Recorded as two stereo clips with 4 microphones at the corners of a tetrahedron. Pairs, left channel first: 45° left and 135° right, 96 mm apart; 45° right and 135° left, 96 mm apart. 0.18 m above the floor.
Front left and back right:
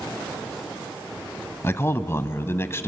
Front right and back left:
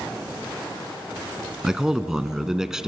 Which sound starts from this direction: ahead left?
A man speaking, at 1.6 s.